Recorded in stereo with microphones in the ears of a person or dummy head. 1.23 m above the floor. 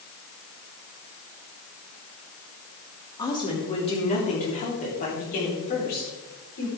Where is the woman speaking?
20° left (ahead or behind), 3 m; by 6.7 s 50° left (ahead or behind), 4.5 m.